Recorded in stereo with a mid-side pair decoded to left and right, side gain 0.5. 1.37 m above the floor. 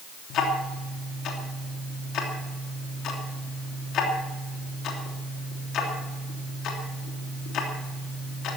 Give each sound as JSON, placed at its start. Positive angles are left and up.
{"t": 0.3, "sound": "ticking", "azimuth_deg": 65, "distance_m": 3.0}